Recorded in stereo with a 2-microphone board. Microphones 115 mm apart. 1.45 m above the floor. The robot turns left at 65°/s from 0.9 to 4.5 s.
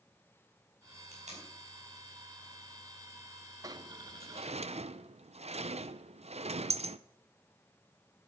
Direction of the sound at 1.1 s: 80° right.